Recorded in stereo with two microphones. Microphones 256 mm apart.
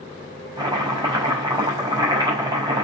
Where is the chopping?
15° right (ahead or behind), 5 m.